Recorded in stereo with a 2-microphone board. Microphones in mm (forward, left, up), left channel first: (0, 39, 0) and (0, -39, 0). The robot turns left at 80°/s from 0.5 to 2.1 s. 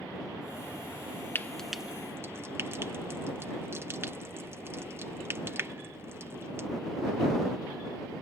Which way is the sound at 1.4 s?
25° left (ahead or behind).